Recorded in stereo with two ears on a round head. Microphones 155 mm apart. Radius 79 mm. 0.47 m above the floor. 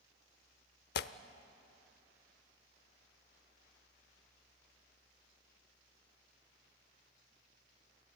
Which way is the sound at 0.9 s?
65° left (ahead or behind).